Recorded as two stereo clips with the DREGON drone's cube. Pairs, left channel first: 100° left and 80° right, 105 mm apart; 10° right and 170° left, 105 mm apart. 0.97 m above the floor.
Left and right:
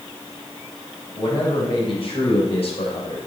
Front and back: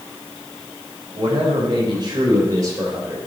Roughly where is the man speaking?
Behind left.